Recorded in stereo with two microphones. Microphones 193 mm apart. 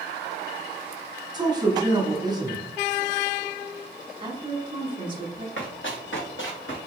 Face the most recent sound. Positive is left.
turn(degrees=85)